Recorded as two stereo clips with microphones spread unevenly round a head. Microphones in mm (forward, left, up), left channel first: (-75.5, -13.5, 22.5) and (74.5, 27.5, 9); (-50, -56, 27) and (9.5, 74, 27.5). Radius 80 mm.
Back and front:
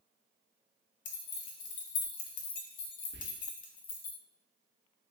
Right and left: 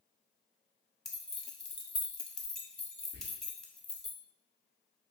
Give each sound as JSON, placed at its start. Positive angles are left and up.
{"t": 1.1, "sound": "keys jangling", "azimuth_deg": 160, "distance_m": 0.7}
{"t": 3.1, "sound": "whispering", "azimuth_deg": 30, "distance_m": 1.1}